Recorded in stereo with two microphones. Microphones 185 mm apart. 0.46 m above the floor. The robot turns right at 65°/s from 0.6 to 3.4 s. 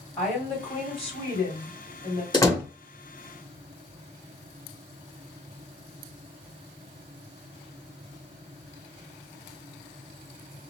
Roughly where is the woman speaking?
Ahead.